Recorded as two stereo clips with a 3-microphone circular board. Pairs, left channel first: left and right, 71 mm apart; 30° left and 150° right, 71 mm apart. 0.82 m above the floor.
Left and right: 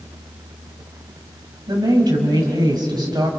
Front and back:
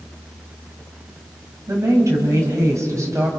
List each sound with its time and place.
1.7 s a woman speaking: 100° right, 5.5 m